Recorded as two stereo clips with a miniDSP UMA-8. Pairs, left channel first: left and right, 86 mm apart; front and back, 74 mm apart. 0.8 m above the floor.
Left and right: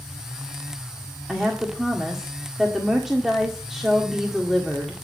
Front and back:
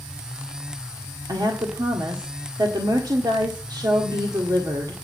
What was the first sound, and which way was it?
A woman speaking, 175° right.